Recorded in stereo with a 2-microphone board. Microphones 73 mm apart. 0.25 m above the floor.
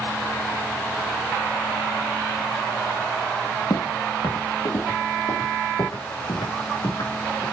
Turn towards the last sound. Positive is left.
turn(degrees=85)